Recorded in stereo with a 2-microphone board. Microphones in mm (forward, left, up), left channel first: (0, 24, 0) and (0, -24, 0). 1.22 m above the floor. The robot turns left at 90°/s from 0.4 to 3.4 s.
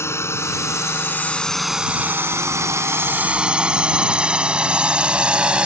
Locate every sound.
0.0 s a drone: 70° left (ahead or behind); by 5.7 s 25° right (ahead or behind)